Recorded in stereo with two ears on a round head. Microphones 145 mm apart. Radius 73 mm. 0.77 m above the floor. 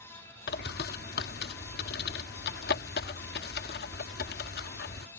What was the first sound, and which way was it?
A bird, 65° left (ahead or behind).